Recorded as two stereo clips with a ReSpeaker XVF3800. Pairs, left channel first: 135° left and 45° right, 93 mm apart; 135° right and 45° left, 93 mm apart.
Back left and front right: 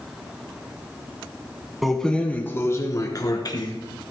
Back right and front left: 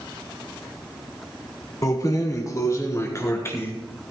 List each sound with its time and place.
1.8 s keys jangling: 135° right, 1.1 m; by 3.7 s 165° left, 2.0 m